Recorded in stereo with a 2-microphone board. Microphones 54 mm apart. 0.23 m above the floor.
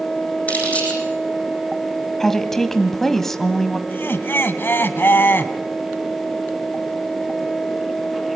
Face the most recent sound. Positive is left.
turn(degrees=45)  # may be behind; listen again after turning